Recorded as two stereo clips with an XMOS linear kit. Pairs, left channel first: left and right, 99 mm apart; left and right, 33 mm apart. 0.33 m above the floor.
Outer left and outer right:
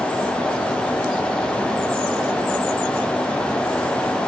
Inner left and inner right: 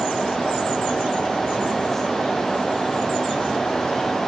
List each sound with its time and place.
Only background noise.